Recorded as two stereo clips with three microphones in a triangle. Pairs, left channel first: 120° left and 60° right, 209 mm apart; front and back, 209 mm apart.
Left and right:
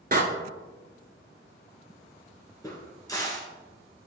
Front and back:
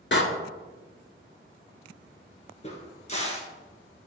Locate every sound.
0.1 s a door slam: 15° right, 1.3 m
2.6 s a crack: 50° left, 1.8 m